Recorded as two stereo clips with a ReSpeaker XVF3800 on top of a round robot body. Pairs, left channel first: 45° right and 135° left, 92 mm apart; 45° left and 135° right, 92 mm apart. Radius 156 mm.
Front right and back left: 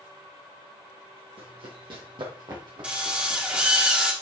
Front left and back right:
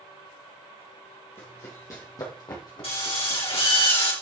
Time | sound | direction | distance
1.4 | running footsteps | 110° left | 3 m
2.8 | a drill | 60° left | 3.5 m